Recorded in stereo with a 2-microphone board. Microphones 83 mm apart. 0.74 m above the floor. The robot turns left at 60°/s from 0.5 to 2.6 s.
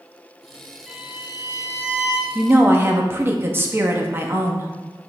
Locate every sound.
0.9 s a violin: straight ahead, 2.5 m; by 2.2 s 80° right, 2.5 m
2.4 s a woman speaking: 20° right (ahead or behind), 0.8 m; by 4.7 s 25° right (ahead or behind), 0.8 m